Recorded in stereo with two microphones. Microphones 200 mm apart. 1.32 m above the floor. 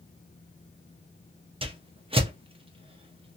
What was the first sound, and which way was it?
A whoosh, 30° right (ahead or behind).